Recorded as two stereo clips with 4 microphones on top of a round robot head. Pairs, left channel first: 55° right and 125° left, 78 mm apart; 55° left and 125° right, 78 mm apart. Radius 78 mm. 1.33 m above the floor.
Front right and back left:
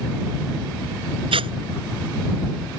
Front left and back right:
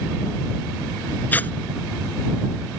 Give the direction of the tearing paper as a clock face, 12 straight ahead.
8 o'clock.